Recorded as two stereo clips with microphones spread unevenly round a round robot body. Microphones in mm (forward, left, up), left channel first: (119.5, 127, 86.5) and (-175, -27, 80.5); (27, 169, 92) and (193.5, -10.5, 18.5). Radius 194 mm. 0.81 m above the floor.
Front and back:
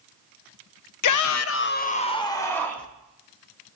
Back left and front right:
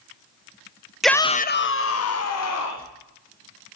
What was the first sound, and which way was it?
A shout, 30° left.